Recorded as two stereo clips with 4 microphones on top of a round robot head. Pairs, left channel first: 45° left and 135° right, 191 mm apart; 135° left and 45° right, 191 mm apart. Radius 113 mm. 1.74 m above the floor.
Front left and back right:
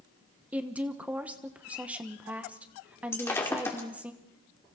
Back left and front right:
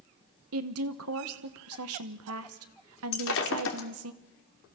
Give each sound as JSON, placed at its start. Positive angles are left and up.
{"t": 0.5, "sound": "a woman speaking", "azimuth_deg": -50, "distance_m": 1.2}
{"t": 3.1, "sound": "breaking glass", "azimuth_deg": 125, "distance_m": 2.0}